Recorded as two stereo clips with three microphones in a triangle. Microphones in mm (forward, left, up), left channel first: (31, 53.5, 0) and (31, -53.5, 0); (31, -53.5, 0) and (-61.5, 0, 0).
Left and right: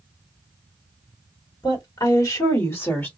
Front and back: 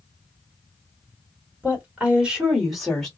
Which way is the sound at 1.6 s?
85° left.